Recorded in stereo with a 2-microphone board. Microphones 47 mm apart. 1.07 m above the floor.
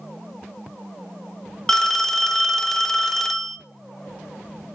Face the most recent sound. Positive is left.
turn(degrees=10)  # may be behind; listen again after turning